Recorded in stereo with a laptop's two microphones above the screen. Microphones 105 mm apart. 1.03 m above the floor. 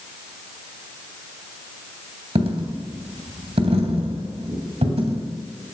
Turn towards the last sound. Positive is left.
turn(degrees=-70)  # may be behind; listen again after turning